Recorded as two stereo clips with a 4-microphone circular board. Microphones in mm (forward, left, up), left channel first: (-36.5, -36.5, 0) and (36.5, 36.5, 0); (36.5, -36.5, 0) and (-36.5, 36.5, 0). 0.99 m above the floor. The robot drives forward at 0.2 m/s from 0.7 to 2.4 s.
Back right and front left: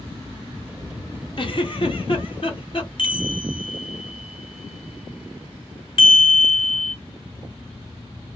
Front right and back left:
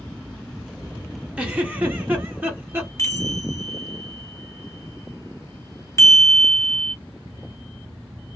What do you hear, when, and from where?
1.4 s a giggle: 150° right, 0.7 m; by 2.9 s 155° right, 0.9 m
3.0 s a chime: 105° right, 0.6 m